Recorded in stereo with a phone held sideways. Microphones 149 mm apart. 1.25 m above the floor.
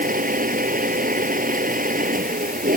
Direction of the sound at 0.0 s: 65° right (ahead or behind).